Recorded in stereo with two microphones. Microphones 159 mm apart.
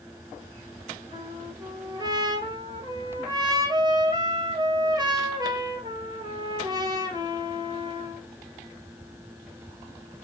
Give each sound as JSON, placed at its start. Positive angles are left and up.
{"t": 1.1, "sound": "a trumpet", "side_deg": -25, "distance_m": 1.2}